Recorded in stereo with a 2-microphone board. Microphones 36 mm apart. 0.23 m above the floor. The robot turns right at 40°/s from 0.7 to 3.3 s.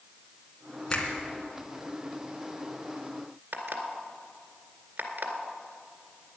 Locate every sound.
0.9 s a finger snap: 15° left (ahead or behind), 2.5 m; by 1.1 s 25° left (ahead or behind), 2.5 m
3.5 s an alarm clock: 55° right (ahead or behind), 2.0 m